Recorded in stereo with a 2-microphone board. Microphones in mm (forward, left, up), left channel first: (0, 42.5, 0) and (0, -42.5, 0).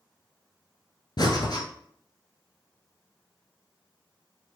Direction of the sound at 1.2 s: 60° left (ahead or behind).